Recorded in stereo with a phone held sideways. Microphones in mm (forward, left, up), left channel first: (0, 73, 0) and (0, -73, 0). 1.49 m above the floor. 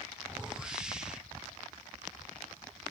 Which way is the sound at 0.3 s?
5° right (ahead or behind).